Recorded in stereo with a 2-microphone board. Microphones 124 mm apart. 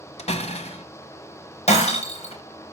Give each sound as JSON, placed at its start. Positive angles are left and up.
{"t": 0.2, "sound": "a door slam", "side_deg": 60, "distance_m": 1.3}
{"t": 1.7, "sound": "breaking glass", "side_deg": 55, "distance_m": 4.5}